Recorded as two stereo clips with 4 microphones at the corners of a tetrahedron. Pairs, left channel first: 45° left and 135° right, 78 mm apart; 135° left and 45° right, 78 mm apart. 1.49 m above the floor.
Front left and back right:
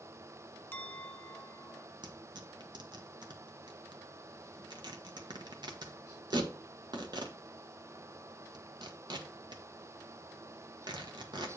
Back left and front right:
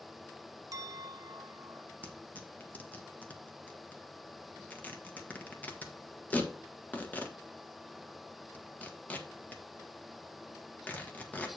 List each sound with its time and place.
0.7 s a clink: 15° right, 0.7 m
2.0 s tearing paper: 155° right, 1.3 m